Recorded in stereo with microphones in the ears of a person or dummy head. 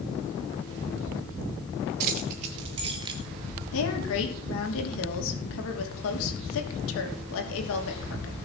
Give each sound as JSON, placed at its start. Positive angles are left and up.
{"t": 2.0, "sound": "keys jangling", "side_deg": -40, "distance_m": 0.9}
{"t": 3.7, "sound": "a woman speaking", "side_deg": 80, "distance_m": 3.0}